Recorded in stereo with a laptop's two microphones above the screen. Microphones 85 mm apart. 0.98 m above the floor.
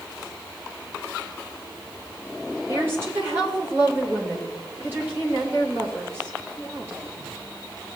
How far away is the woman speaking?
About 3 m.